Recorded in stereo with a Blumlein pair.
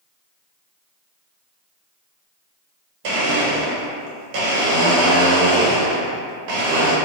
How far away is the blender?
About 0.9 m.